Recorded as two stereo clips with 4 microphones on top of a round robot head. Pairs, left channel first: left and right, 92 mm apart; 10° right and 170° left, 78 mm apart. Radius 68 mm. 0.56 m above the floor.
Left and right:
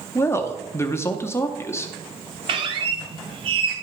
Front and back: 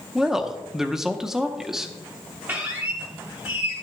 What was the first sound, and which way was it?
A woman speaking, 90° left.